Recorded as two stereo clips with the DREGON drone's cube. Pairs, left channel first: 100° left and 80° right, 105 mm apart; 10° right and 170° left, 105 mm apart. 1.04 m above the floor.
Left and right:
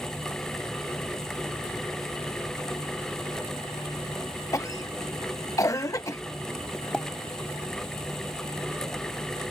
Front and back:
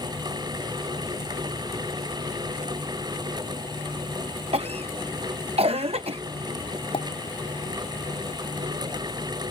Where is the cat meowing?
I don't hear a cat meowing.